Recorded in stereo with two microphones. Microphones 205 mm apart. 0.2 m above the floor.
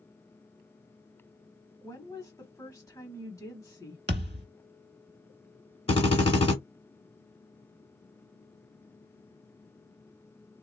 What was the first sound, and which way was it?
A woman speaking, 15° left (ahead or behind).